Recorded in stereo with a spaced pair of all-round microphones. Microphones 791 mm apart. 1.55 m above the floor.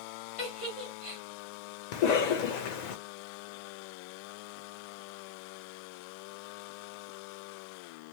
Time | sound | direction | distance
0.4 | a giggle | 40° left (ahead or behind) | 1.8 m
1.9 | a cough | 65° left (ahead or behind) | 0.5 m